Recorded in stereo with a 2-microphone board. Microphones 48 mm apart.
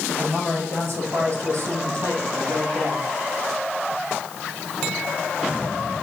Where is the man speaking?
50° right (ahead or behind), 4 m; by 3.0 s 75° right (ahead or behind), 5 m.